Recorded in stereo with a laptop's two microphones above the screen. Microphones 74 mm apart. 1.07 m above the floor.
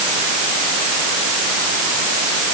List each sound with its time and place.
Only background noise.